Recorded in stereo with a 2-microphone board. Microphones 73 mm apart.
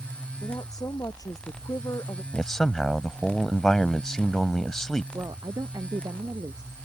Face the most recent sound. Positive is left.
turn(degrees=-65)  # may be behind; listen again after turning